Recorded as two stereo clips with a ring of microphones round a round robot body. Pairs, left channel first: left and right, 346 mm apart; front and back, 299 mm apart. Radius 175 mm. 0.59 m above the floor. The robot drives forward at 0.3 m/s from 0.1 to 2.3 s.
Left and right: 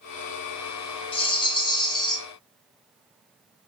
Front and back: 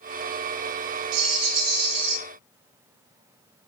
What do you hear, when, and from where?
1.1 s a rattle: 165° left, 1.6 m; by 2.2 s 170° left, 1.9 m